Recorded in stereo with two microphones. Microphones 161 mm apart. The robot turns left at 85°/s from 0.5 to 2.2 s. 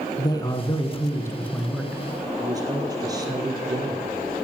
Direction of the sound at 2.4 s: 25° right (ahead or behind).